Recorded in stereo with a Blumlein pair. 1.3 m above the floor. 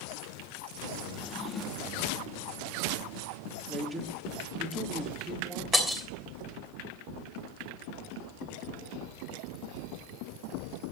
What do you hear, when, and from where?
1.1 s a drawer: 25° left, 1.5 m
3.7 s a man speaking: 5° right, 3.5 m
5.7 s breaking glass: straight ahead, 3 m